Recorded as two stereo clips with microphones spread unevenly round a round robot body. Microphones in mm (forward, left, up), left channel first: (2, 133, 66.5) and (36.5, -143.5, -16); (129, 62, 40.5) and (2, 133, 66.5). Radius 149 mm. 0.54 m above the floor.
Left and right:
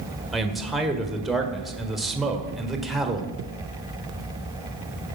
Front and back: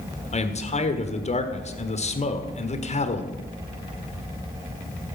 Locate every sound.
0.3 s a man speaking: straight ahead, 1.5 m